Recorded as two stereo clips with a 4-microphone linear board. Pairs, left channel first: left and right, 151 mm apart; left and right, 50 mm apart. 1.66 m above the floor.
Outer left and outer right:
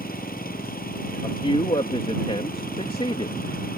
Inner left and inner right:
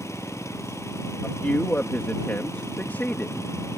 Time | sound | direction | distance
0.0 | an engine running | 85° left | ?
1.2 | a man speaking | 40° left (ahead or behind) | ?